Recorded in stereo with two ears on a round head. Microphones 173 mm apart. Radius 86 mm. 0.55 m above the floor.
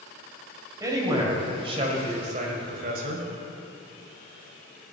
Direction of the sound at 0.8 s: 20° right (ahead or behind).